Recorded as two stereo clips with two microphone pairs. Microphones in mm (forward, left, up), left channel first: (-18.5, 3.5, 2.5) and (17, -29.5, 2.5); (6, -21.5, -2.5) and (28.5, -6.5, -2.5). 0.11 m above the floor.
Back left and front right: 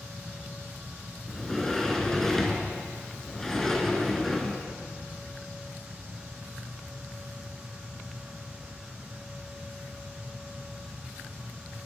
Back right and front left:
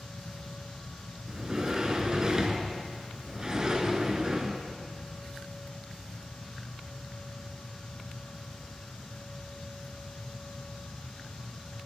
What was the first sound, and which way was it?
A sliding door, 60° left.